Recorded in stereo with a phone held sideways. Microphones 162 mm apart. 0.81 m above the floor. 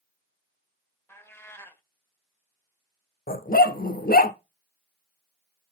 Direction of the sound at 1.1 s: 15° left (ahead or behind).